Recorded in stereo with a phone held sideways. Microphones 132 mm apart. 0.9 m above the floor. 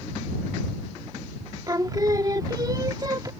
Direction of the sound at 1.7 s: 30° right (ahead or behind).